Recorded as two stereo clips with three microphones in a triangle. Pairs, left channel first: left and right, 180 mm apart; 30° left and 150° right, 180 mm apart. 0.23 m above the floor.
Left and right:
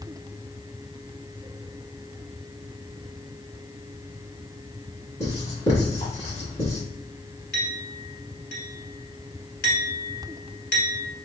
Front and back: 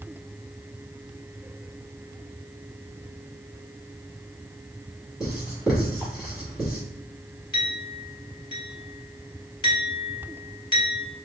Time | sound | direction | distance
5.2 | writing | 125° left | 1.9 m
7.5 | a clink | 90° left | 1.4 m